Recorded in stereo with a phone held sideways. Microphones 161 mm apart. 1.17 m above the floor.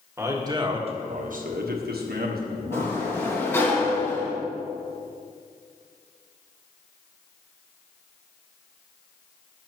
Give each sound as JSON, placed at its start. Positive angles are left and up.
{"t": 0.2, "sound": "a man speaking", "side_deg": -20, "distance_m": 1.7}
{"t": 2.7, "sound": "a sliding door", "side_deg": 15, "distance_m": 1.8}